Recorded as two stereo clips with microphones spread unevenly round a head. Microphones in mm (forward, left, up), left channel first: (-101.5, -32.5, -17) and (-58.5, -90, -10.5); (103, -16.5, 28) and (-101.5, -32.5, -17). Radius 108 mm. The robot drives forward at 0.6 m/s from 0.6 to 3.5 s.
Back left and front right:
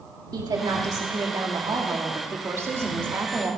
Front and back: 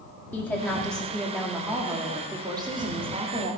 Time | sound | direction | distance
0.3 | a woman speaking | 75° right | 2.5 m